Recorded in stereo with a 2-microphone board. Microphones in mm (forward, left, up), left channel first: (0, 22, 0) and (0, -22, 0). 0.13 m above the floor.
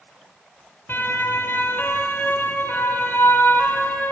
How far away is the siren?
About 4.5 m.